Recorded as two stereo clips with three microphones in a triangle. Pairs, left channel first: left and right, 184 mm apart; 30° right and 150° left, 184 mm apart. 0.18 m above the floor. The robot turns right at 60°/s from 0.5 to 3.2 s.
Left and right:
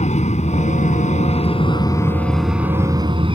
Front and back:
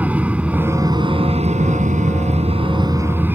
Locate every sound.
0.0 s an aircraft: 70° left; by 3.4 s 135° right